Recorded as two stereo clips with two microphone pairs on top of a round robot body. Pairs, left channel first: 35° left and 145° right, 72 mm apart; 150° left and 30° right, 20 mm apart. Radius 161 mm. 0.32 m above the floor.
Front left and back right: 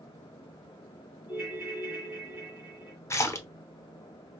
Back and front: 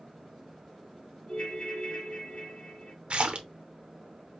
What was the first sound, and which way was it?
A ringtone, 125° left.